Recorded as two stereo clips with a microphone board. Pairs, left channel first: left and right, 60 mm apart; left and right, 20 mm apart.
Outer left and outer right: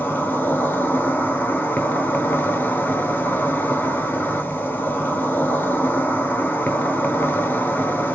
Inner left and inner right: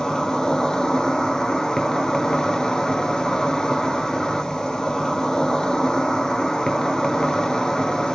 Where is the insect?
35° left (ahead or behind), 0.8 m.